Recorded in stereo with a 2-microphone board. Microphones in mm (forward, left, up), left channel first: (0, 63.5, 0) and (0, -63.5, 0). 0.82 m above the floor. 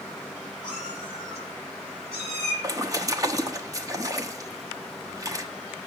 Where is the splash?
25° right (ahead or behind), 0.9 m.